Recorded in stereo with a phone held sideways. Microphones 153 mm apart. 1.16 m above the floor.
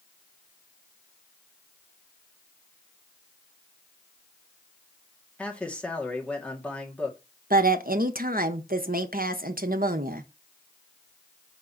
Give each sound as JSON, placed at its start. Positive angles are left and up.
{"t": 5.4, "sound": "a man speaking", "side_deg": 10, "distance_m": 2.0}
{"t": 7.5, "sound": "a woman speaking", "side_deg": -70, "distance_m": 0.9}